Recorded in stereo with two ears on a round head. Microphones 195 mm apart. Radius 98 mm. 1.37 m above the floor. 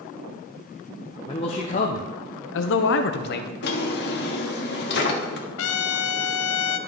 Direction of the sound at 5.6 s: 70° left (ahead or behind).